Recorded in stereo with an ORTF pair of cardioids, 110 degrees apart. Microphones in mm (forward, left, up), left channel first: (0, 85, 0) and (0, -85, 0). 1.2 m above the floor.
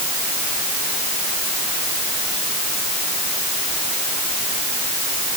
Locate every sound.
Only background noise.